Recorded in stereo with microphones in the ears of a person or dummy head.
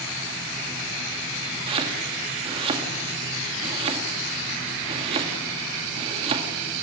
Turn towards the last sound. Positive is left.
turn(degrees=-30)  # may be behind; listen again after turning